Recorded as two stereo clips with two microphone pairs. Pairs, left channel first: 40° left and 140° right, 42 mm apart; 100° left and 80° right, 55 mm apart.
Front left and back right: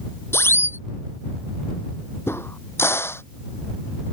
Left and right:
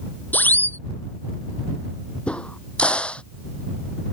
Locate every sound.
0.3 s a siren: 45° left
2.3 s a crack: 30° left